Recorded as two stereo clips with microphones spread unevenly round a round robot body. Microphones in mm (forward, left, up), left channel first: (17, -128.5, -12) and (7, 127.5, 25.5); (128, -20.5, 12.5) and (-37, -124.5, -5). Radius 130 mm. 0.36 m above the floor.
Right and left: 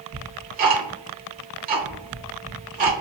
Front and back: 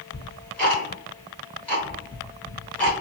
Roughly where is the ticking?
Behind left.